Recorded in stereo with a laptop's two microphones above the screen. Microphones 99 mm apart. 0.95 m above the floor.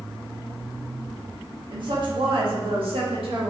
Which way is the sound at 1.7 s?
50° right (ahead or behind).